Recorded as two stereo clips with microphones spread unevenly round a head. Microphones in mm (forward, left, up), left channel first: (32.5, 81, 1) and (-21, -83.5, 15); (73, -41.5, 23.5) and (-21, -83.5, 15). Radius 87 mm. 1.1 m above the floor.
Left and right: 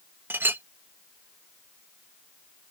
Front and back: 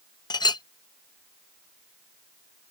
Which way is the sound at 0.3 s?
30° right.